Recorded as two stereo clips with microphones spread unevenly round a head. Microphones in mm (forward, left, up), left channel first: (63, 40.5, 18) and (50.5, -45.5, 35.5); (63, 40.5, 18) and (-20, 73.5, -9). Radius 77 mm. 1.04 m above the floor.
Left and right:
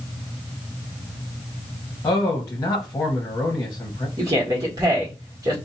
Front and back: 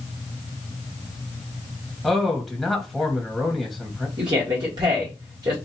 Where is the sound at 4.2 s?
155° right, 1.3 m.